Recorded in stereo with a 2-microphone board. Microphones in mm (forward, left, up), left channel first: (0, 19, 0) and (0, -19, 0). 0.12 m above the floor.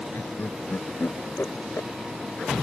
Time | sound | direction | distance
0.1 | laughter | 70° left (ahead or behind) | ?